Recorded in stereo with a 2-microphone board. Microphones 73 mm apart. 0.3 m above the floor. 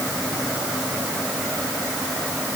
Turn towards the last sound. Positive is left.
No sound to turn to.